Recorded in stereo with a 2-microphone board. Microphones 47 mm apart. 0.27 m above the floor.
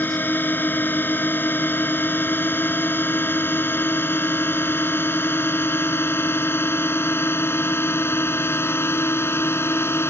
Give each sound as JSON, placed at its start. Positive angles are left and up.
{"t": 0.0, "sound": "a drone", "side_deg": 45}